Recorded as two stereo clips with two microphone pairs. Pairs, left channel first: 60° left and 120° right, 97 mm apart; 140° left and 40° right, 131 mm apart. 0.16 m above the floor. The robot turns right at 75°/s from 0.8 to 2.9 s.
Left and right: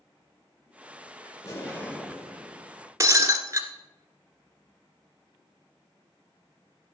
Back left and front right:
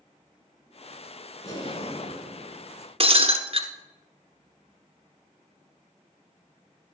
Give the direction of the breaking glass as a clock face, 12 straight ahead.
2 o'clock.